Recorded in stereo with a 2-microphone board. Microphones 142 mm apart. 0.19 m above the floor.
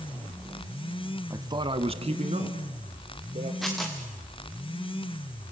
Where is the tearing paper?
Centre (ahead or behind), 4.5 m.